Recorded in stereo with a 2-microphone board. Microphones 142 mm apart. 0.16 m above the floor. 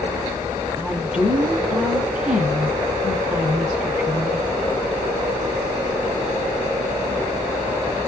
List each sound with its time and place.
0.8 s a woman speaking: 10° right (ahead or behind), 1.0 m